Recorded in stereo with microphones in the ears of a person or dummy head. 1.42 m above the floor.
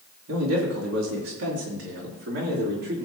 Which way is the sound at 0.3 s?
80° right.